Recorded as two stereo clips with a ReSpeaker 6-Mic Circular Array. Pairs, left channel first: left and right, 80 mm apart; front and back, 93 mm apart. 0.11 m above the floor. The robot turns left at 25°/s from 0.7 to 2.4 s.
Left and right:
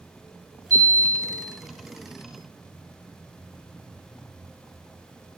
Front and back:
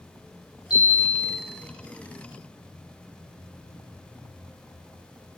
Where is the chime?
40° right, 7.5 m; by 1.4 s 55° right, 7.5 m.